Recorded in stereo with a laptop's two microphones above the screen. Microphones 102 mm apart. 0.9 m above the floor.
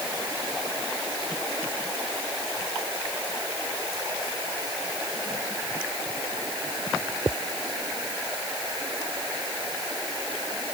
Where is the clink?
I don't hear a clink.